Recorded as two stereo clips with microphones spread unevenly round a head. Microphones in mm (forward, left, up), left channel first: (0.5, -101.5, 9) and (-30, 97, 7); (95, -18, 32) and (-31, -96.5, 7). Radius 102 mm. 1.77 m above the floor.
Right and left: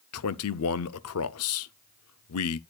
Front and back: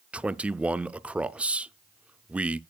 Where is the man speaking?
65° right, 0.5 m.